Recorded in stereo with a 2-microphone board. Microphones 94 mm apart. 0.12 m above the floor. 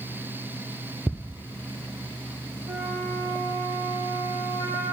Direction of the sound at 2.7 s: 55° right (ahead or behind).